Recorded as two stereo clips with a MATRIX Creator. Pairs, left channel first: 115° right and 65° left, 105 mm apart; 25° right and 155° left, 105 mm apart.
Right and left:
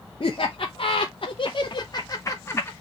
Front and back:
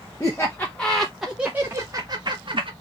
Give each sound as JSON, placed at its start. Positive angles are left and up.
{"t": 0.2, "sound": "laughter", "azimuth_deg": -85, "distance_m": 1.0}